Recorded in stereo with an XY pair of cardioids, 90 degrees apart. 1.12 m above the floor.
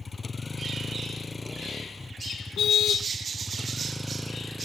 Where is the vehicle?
30° left; by 4.7 s 5° right.